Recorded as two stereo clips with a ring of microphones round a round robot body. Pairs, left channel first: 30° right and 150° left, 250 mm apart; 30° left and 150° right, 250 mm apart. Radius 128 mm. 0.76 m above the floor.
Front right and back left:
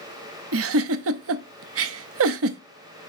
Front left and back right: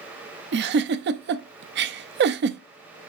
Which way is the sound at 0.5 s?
170° left.